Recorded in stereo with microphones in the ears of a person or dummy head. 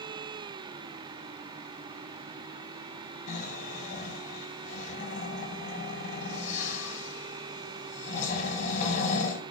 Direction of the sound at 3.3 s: 45° left (ahead or behind).